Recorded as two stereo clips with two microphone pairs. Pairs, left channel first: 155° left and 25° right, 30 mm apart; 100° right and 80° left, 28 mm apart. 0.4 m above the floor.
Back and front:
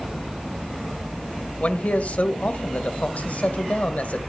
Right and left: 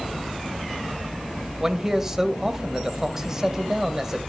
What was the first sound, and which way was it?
A man speaking, 145° left.